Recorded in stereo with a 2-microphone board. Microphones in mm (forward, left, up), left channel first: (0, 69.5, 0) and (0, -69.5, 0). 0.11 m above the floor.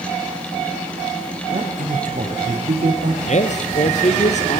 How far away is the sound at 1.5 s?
About 8.5 m.